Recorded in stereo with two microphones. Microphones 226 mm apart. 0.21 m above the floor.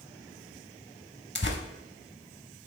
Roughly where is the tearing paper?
Left.